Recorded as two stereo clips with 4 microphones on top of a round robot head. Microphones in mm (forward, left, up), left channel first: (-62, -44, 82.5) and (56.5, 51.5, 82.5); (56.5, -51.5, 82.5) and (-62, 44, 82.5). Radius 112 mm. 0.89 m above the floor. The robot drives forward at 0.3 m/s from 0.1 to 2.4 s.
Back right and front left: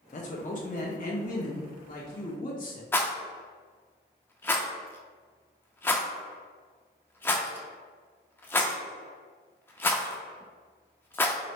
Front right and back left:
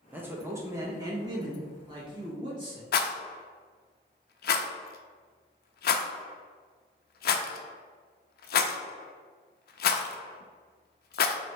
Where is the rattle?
65° right, 0.5 m.